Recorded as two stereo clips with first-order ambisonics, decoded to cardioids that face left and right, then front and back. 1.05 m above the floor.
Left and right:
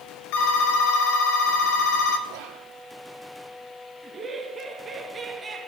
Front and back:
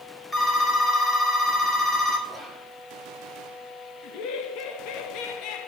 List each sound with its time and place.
0.3 s a phone ringing: 80° left, 2 m
2.3 s whispering: 85° right, 2 m
4.0 s laughter: 15° right, 1.9 m